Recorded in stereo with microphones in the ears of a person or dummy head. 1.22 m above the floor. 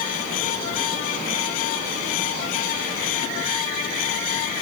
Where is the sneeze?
I don't hear a sneeze.